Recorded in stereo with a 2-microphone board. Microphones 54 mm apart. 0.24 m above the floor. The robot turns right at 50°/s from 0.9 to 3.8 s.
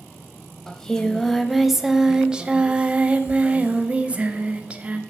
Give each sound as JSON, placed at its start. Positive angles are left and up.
{"t": 0.7, "sound": "singing", "side_deg": 15, "distance_m": 0.6}